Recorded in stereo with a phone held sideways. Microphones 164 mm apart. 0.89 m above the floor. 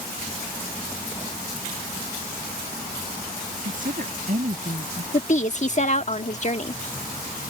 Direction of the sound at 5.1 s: 45° left (ahead or behind).